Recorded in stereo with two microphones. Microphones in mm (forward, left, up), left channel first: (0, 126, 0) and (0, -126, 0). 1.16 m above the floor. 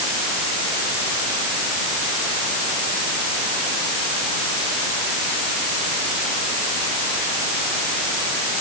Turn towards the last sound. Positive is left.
No sound to turn to.